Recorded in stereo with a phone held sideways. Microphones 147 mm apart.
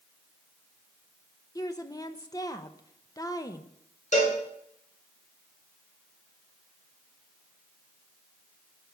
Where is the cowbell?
55° left (ahead or behind), 4.5 m.